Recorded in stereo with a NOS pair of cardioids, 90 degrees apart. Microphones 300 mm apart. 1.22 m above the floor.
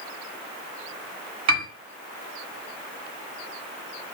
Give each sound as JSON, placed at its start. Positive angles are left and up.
{"t": 1.5, "sound": "a piano", "azimuth_deg": -65, "distance_m": 1.6}